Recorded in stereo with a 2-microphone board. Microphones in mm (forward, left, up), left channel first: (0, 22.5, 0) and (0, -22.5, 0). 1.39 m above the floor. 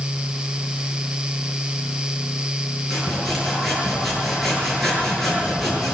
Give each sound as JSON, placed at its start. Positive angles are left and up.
{"t": 2.9, "sound": "sawing", "side_deg": 5, "distance_m": 8.0}